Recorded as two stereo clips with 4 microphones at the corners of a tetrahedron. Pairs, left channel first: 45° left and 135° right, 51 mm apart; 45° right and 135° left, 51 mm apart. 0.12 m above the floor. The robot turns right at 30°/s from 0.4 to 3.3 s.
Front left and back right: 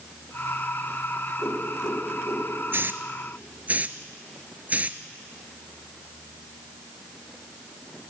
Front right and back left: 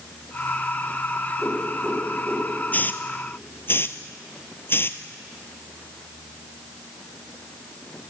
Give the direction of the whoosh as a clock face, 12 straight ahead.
11 o'clock.